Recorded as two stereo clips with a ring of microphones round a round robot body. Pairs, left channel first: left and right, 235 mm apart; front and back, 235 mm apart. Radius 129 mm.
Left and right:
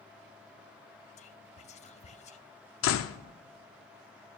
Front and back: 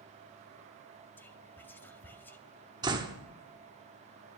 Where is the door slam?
105° left, 0.6 m.